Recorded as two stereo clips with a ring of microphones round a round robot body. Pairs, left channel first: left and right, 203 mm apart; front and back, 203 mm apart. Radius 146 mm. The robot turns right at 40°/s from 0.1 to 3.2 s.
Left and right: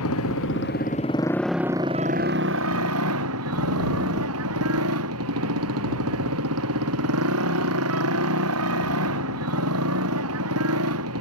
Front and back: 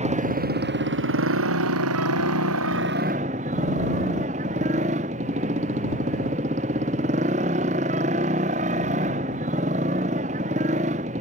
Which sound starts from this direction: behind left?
A motorcycle, at 0.0 s.